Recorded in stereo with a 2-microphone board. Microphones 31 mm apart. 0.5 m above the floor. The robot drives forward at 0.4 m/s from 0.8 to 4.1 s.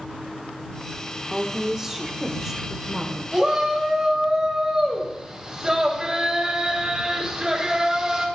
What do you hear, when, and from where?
1.3 s a woman speaking: 20° right (ahead or behind), 0.9 m; by 3.2 s 10° right (ahead or behind), 1.4 m
3.3 s a shout: 20° right (ahead or behind), 2.5 m; by 8.2 s 15° right (ahead or behind), 2.5 m